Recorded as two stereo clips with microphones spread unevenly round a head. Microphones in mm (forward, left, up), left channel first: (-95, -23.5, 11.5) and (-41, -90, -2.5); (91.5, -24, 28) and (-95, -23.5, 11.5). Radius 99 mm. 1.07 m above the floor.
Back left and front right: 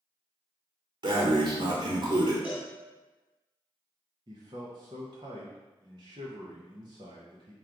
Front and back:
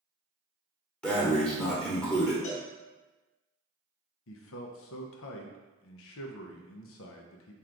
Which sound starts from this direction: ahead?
A man speaking, at 4.3 s.